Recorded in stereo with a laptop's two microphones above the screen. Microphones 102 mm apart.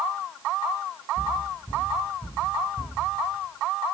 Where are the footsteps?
45° left (ahead or behind), 3.5 m.